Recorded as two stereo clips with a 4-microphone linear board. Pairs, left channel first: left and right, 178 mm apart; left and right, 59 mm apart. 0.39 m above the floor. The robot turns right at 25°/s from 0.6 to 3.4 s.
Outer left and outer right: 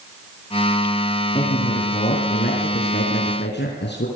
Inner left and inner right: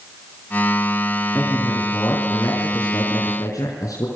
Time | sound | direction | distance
1.4 | a man speaking | 30° left | 4.5 m